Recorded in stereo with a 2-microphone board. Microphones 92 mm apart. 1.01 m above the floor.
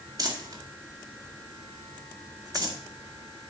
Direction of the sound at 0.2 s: 45° right (ahead or behind).